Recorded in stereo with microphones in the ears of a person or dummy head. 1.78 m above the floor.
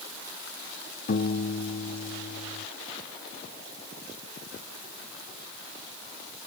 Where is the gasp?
No gasp in this recording.